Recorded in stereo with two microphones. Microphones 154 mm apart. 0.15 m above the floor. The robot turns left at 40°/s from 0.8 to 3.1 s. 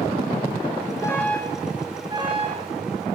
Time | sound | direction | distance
1.0 | an alarm | 20° left | 4.5 m